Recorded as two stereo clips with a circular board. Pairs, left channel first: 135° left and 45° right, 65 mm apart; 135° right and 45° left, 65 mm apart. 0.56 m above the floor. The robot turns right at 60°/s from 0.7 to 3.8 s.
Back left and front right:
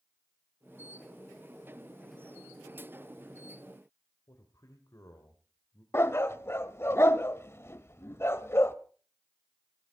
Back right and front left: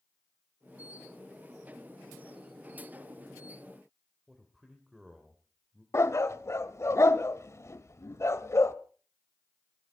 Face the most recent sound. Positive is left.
turn(degrees=180)